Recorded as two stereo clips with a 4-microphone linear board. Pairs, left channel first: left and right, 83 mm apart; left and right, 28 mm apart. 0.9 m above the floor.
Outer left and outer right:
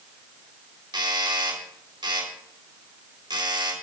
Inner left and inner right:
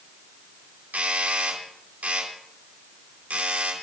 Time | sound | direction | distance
0.9 | a doorbell | 75° right (ahead or behind) | 3.5 m